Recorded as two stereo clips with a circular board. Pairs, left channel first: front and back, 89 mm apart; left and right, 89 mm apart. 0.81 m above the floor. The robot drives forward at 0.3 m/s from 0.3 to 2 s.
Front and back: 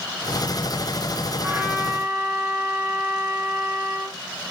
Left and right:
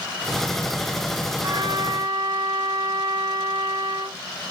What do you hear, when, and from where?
1.4 s a trumpet: 120° right, 1.5 m; by 4.2 s 125° right, 1.5 m